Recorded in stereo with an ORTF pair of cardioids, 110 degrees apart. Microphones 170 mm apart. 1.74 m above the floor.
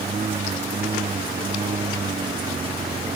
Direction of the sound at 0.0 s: 35° right.